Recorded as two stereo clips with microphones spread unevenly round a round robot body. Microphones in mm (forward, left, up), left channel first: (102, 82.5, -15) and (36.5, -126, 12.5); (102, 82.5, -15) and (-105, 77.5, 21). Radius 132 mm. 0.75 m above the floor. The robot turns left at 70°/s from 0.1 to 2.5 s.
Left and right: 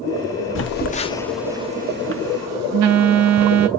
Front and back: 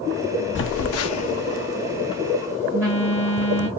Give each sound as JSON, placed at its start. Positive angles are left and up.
{"t": 0.6, "sound": "a phone buzzing", "azimuth_deg": 40, "distance_m": 0.6}